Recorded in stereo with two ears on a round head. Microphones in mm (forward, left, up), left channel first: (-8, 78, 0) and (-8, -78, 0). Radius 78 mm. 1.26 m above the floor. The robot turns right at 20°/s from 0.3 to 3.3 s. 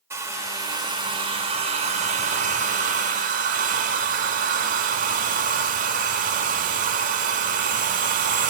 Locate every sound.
0.1 s a hair dryer: 160° right, 1.2 m; by 8.5 s 100° right, 1.2 m